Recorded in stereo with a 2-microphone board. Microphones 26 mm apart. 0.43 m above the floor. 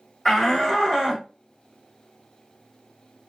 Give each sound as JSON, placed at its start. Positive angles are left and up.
{"t": 0.2, "sound": "a shout", "side_deg": 5, "distance_m": 1.2}